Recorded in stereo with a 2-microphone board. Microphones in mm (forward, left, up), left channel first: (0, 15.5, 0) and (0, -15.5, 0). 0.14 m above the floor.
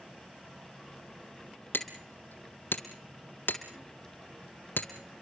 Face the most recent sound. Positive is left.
turn(degrees=80)